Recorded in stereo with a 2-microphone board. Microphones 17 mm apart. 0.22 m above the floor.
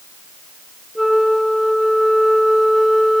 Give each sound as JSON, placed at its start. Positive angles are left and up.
{"t": 0.9, "sound": "a flute", "side_deg": -10, "distance_m": 2.0}